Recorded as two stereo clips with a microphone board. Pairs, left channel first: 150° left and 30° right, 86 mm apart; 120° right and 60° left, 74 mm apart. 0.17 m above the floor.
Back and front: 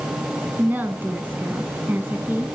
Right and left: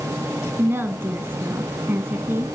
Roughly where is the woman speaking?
Ahead left.